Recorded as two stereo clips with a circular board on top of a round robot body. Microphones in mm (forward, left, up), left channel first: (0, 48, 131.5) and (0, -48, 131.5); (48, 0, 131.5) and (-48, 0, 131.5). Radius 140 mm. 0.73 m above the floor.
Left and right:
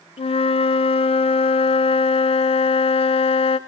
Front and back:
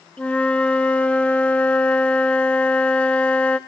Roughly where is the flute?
Left.